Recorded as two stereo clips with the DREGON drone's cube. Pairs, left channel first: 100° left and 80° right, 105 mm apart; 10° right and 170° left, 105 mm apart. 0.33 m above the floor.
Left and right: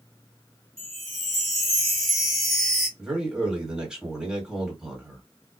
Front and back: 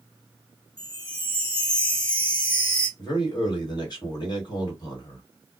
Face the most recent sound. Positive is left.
turn(degrees=0)